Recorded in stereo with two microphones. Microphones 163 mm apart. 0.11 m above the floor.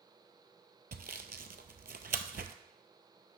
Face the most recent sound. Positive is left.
turn(degrees=-70)  # may be behind; listen again after turning